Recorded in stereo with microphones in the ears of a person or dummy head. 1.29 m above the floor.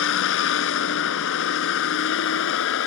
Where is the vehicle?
75° left (ahead or behind).